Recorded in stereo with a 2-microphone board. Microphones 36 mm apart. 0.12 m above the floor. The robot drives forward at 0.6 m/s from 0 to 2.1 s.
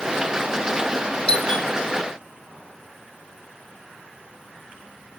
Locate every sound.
1.3 s a doorbell: 25° left (ahead or behind), 2.5 m